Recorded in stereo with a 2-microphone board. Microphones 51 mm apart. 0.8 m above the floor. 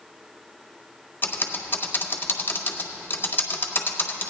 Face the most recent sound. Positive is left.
turn(degrees=45)  # may be behind; listen again after turning